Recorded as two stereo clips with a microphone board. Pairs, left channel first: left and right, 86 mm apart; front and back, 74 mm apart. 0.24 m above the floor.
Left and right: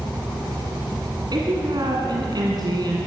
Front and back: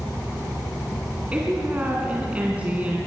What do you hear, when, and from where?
1.3 s a woman speaking: 110° right, 2.5 m